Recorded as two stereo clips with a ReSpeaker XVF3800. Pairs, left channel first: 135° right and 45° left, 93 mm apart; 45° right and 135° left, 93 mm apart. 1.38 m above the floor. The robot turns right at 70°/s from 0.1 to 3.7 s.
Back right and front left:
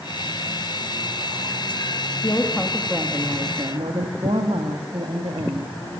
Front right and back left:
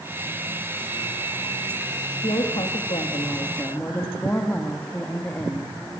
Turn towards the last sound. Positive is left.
turn(degrees=25)